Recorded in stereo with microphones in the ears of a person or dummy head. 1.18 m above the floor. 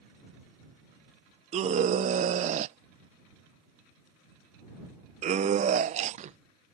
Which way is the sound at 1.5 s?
35° right (ahead or behind).